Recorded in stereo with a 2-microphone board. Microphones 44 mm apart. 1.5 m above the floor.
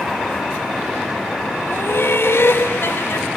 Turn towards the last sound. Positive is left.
turn(degrees=65)  # may be behind; listen again after turning